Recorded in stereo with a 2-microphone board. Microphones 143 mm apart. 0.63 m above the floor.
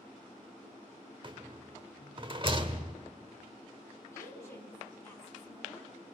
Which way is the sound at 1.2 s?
35° right (ahead or behind).